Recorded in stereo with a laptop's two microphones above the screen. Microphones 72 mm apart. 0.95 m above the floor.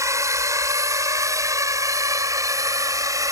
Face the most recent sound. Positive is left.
turn(degrees=-50)  # may be behind; listen again after turning